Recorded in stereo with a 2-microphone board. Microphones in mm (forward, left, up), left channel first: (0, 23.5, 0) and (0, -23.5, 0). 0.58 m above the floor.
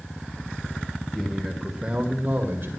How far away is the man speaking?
About 2.5 m.